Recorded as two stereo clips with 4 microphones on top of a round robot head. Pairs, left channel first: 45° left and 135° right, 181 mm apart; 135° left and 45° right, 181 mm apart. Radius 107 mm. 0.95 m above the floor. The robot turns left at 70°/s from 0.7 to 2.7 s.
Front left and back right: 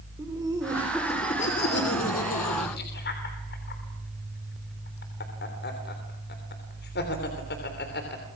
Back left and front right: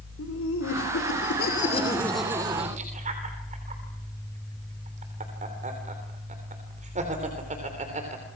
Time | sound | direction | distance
0.2 | laughter | 150° left | 3.5 m